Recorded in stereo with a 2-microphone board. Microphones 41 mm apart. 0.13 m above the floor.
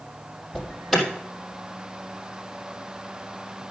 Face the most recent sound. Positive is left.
turn(degrees=0)  # may be behind; listen again after turning